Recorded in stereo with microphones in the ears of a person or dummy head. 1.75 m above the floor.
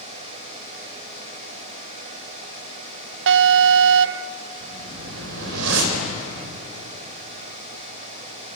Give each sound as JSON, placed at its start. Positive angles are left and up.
{"t": 3.3, "sound": "an alarm", "side_deg": -70, "distance_m": 0.6}
{"t": 4.6, "sound": "a whoosh", "side_deg": -75, "distance_m": 4.0}